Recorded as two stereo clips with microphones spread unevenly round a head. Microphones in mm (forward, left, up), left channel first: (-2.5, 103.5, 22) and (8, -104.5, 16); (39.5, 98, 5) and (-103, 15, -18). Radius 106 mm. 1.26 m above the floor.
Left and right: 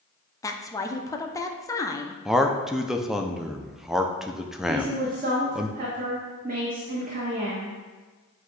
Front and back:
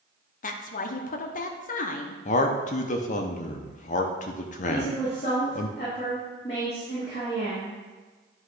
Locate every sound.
0.4 s a woman speaking: 25° left, 0.6 m
2.2 s a man speaking: straight ahead, 0.5 m
4.7 s a woman speaking: 35° right, 1.2 m